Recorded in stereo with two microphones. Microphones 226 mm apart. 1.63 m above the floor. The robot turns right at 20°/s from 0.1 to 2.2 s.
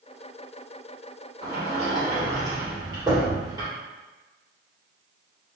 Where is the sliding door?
30° right (ahead or behind), 1.9 m; by 3.7 s 20° right (ahead or behind), 1.9 m.